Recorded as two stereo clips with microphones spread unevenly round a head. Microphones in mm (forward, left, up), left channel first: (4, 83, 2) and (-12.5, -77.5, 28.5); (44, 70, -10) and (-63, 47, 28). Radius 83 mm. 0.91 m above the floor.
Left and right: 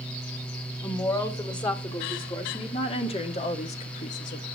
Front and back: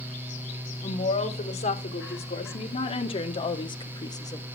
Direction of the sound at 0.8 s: 20° left.